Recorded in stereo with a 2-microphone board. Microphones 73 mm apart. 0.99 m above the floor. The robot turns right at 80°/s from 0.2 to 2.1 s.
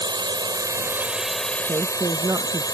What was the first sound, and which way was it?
A drone, 90° right.